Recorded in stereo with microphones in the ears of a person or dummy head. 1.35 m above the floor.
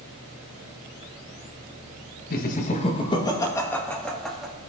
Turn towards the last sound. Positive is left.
turn(degrees=0)  # may be behind; listen again after turning